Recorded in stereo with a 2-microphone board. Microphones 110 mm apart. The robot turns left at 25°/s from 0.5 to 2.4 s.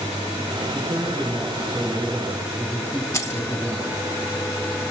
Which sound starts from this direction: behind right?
A man speaking, at 0.7 s.